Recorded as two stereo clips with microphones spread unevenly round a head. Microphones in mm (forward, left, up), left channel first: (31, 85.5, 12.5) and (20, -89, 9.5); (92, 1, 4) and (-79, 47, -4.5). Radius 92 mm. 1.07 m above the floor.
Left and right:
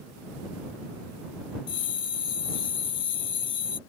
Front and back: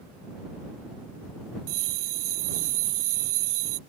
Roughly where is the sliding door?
No sliding door in this recording.